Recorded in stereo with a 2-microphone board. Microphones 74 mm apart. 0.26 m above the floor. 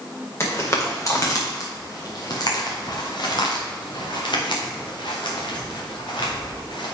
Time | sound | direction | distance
0.4 | footsteps | 35° left (ahead or behind) | 3 m